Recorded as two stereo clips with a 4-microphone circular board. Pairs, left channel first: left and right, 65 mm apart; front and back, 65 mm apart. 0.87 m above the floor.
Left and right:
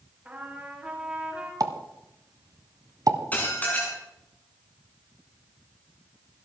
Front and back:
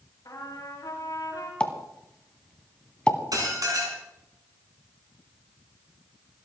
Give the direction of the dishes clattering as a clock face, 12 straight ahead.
7 o'clock.